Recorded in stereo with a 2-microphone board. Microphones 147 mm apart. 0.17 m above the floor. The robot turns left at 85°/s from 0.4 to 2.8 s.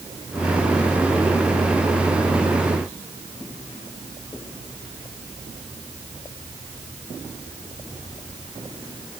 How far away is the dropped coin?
No dropped coin in this recording.